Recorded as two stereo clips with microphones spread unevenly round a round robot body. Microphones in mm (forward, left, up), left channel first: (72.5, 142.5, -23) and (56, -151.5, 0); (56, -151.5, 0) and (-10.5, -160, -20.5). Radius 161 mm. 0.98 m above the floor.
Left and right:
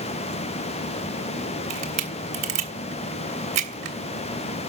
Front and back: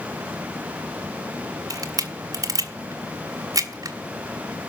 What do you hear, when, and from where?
1.7 s a camera shutter: 140° right, 1.3 m